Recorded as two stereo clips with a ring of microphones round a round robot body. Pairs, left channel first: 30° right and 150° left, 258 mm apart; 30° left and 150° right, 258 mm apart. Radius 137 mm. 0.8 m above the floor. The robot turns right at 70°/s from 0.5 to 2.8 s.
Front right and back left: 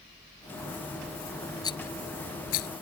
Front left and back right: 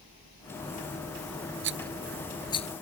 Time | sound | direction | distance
1.6 | a rattle | 105° right | ?